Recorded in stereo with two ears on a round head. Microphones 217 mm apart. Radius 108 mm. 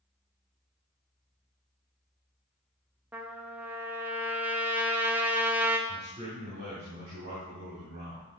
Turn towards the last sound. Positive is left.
turn(degrees=-45)  # may be behind; listen again after turning